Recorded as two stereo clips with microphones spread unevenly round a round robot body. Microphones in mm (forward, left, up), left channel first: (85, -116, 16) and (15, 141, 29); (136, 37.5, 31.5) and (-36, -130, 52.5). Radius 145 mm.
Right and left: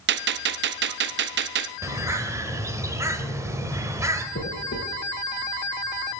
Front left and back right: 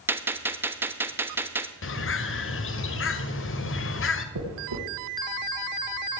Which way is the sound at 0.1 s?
140° left.